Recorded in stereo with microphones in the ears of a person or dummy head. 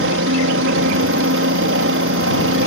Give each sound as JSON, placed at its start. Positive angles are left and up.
{"t": 0.0, "sound": "a helicopter", "side_deg": -65}